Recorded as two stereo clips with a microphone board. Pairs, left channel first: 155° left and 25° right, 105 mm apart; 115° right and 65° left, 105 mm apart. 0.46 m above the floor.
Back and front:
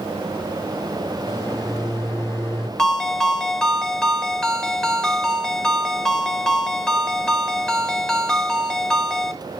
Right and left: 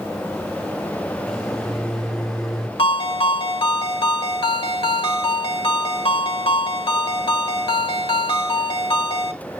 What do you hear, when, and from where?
1.3 s a microwave: 165° left, 1.1 m
2.8 s a ringtone: 120° right, 1.0 m